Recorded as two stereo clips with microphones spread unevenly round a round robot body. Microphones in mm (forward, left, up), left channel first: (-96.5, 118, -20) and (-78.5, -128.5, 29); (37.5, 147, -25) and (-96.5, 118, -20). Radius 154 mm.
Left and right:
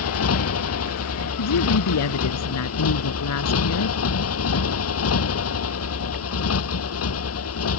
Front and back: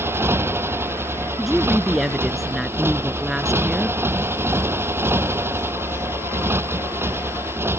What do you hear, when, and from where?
0.0 s a motorcycle: 120° left
1.4 s a woman speaking: 105° left